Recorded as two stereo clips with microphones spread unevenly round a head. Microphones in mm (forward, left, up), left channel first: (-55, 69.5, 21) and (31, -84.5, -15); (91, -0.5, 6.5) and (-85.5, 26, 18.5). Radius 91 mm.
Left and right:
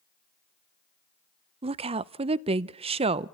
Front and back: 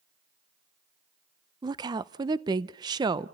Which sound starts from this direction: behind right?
A woman speaking, at 1.6 s.